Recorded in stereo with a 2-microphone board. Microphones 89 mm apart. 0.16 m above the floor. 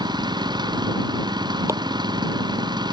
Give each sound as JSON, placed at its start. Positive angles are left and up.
{"t": 0.0, "sound": "an engine running", "side_deg": -55}
{"t": 1.7, "sound": "chopping", "side_deg": -35}